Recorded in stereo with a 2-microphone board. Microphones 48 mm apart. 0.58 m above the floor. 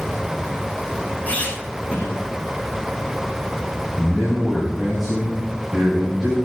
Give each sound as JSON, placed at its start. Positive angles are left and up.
{"t": 1.3, "sound": "a squeak", "side_deg": 30, "distance_m": 4.5}
{"t": 4.0, "sound": "a man speaking", "side_deg": -10, "distance_m": 3.5}